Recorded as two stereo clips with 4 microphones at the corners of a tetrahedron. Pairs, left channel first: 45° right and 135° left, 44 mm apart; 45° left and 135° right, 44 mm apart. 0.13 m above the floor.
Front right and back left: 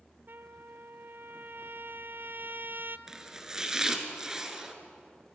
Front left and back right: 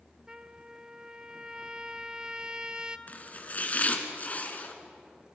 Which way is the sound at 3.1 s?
65° left.